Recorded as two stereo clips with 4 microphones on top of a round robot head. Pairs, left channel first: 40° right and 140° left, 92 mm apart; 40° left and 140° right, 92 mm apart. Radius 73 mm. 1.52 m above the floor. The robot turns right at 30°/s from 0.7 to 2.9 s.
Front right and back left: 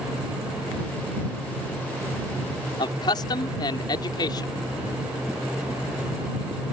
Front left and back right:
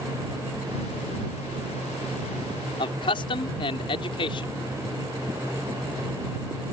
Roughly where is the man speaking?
Ahead.